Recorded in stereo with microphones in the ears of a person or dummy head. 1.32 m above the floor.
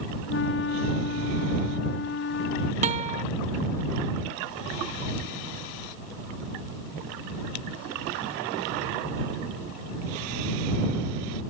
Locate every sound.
0.3 s a flute: 60° left (ahead or behind)
2.8 s a guitar: 35° right (ahead or behind)